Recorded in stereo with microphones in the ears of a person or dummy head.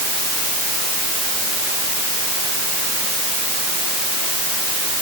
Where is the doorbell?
I don't hear a doorbell.